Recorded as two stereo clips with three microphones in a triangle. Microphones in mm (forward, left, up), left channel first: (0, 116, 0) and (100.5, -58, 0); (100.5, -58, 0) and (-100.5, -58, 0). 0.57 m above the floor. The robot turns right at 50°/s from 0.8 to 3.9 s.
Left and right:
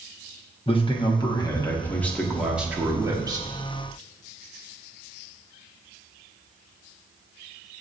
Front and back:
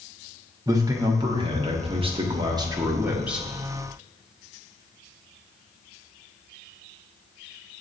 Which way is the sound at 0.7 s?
130° left.